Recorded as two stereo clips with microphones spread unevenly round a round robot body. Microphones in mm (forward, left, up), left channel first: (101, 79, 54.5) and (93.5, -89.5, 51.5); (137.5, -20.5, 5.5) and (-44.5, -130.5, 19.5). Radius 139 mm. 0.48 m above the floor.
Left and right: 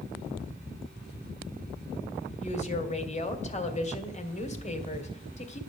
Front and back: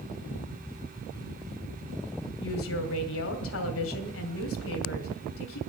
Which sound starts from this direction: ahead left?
A woman speaking, at 2.4 s.